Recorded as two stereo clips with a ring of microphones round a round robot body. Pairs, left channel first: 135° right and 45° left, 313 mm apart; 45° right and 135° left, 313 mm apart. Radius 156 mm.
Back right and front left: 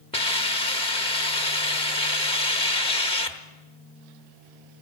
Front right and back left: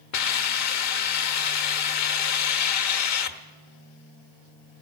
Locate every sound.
0.1 s a hiss: 65° right, 1.1 m